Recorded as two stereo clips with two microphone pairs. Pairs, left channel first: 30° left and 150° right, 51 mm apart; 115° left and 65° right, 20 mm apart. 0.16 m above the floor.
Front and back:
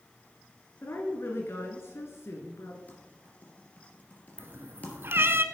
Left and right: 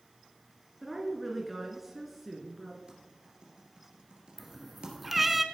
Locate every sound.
0.8 s a woman speaking: 20° left, 2.5 m
2.9 s typing on a keyboard: 30° right, 3 m
4.4 s a cat meowing: 145° right, 0.9 m